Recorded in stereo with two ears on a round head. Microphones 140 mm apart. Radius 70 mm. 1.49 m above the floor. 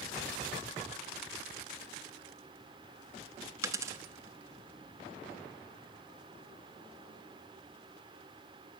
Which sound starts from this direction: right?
A dropped coin, at 3.6 s.